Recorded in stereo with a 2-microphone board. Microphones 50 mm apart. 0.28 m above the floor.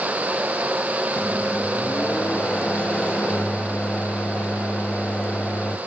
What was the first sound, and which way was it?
A microwave, 25° left (ahead or behind).